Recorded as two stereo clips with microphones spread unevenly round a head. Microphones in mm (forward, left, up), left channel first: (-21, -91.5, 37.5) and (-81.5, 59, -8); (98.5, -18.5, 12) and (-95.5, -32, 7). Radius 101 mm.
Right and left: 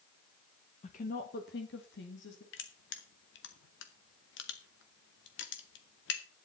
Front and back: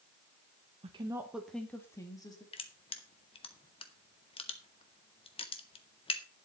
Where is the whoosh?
No whoosh in this recording.